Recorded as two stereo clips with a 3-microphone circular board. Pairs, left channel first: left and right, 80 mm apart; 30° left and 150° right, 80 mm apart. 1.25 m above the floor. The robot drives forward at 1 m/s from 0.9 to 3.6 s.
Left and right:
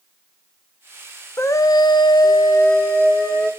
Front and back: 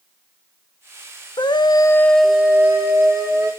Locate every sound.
1.4 s a scream: 35° left, 0.8 m; by 3.5 s 165° left, 1.6 m